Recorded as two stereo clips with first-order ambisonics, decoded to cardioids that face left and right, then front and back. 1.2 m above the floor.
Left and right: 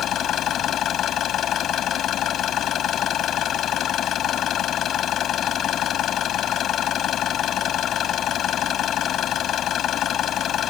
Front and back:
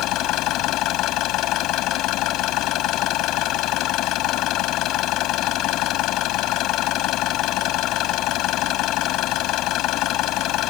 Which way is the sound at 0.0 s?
35° left.